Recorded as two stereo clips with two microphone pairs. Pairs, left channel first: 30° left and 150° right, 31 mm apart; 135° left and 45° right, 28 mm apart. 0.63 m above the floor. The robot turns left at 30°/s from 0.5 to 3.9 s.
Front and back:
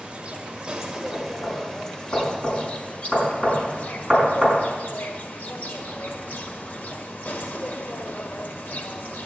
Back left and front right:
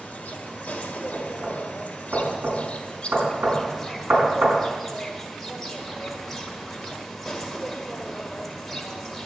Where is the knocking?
25° left, 5 m; by 4.6 s 60° right, 5 m.